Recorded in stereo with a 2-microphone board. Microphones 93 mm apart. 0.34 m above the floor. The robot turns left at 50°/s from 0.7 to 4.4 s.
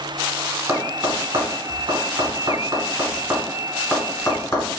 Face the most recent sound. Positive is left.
turn(degrees=35)  # may be behind; listen again after turning